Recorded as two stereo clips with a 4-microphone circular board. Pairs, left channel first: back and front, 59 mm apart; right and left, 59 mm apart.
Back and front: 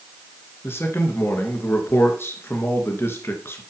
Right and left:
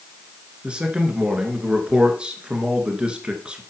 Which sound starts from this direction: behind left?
A man speaking, at 0.6 s.